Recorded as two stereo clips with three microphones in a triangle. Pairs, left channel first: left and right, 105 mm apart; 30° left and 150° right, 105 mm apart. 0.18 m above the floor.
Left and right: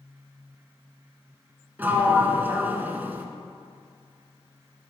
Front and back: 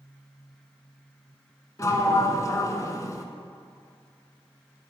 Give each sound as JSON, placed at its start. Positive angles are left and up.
{"t": 1.8, "sound": "a sliding door", "azimuth_deg": -20, "distance_m": 0.6}